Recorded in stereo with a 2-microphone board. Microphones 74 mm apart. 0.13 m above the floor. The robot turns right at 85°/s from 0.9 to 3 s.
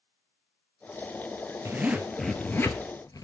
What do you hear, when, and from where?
1.6 s a zipper: 45° right, 0.9 m; by 3.2 s 70° left, 0.9 m